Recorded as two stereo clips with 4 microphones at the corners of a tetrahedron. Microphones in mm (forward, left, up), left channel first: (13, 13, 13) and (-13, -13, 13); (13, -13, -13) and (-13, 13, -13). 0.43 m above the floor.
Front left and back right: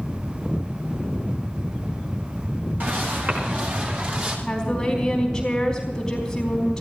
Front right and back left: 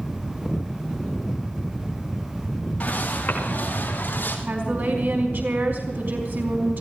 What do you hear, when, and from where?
2.8 s footsteps: 100° right, 7 m; by 4.4 s 85° right, 8 m
4.5 s a woman speaking: 120° left, 4.5 m